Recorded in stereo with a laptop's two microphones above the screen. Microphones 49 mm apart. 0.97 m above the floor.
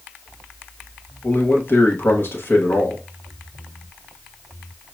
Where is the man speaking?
50° left (ahead or behind), 1.1 m.